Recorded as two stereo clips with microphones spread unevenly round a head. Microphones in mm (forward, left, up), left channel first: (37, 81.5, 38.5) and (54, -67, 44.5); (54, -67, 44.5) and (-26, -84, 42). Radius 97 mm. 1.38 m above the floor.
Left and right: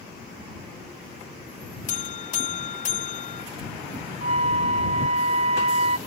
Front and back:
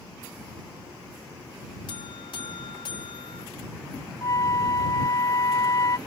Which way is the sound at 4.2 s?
35° right.